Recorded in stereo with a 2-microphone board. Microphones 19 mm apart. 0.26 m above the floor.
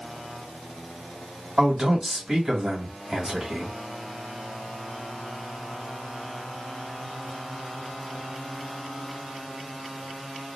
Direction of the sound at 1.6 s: 30° right (ahead or behind).